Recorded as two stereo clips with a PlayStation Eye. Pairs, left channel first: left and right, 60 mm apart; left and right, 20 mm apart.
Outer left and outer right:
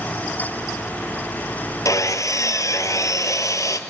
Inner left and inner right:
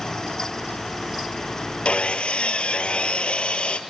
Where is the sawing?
65° left (ahead or behind), 1.2 m.